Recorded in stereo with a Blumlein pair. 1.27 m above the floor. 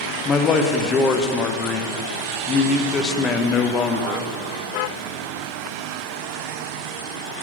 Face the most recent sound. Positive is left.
turn(degrees=25)